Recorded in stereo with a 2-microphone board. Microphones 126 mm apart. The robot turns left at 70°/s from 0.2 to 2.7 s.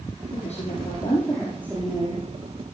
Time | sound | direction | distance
0.3 | a woman speaking | 80° left | 5.5 m